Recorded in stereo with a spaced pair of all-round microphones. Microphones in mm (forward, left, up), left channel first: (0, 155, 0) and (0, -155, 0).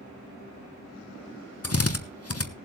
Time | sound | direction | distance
1.6 | a drill | 50° left (ahead or behind) | 1.0 m